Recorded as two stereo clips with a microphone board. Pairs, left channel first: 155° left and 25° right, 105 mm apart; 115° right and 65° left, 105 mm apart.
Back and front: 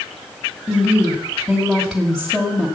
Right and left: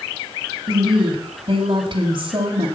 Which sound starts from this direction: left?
A woman speaking, at 0.7 s.